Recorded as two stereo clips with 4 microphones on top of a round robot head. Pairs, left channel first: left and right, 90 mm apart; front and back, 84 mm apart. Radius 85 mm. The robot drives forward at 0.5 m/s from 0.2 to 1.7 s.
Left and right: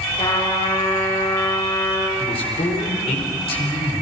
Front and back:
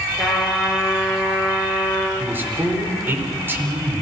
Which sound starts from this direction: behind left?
A man speaking, at 2.2 s.